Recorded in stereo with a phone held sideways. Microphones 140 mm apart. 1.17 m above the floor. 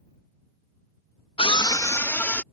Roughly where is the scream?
Left.